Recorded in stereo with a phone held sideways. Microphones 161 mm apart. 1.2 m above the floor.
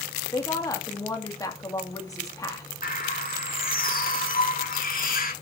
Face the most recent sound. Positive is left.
turn(degrees=60)  # may be behind; listen again after turning